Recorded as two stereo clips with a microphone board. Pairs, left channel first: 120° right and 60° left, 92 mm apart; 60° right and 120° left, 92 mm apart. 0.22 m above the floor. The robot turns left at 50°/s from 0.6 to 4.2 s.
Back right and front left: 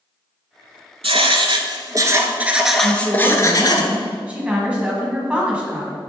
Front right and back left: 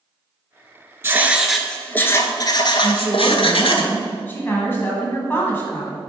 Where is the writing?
55° left, 0.7 m; by 3.8 s 80° right, 0.7 m.